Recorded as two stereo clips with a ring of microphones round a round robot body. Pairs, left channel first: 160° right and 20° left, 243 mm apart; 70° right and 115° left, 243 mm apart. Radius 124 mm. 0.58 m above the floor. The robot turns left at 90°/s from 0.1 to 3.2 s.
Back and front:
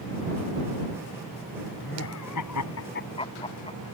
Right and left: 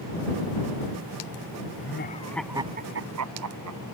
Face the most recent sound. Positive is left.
turn(degrees=135)